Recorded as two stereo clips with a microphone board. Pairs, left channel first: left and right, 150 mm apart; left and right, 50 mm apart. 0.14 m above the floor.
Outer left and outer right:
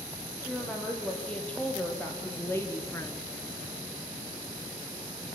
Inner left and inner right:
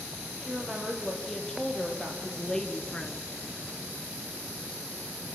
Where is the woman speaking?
5° left (ahead or behind), 5.5 m; by 3.4 s 25° left (ahead or behind), 1.8 m.